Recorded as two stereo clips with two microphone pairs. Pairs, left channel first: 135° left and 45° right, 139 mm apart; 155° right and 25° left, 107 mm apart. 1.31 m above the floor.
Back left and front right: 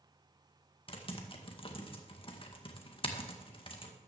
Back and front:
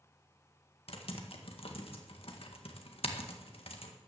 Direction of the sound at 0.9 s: Straight behind.